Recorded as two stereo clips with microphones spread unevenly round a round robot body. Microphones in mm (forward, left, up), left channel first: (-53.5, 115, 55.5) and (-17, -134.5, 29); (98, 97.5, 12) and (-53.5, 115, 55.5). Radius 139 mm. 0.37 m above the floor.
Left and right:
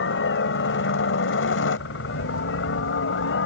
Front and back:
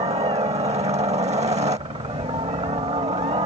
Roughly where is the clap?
No clap in this recording.